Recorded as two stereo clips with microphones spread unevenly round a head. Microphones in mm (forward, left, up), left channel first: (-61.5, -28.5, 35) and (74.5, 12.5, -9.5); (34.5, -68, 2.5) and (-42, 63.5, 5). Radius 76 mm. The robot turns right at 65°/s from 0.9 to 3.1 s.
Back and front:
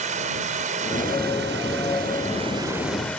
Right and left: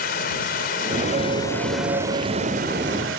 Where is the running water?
25° right; by 3.2 s 115° left.